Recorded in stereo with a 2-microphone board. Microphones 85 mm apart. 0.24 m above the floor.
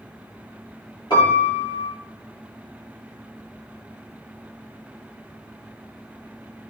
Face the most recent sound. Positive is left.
turn(degrees=60)  # may be behind; listen again after turning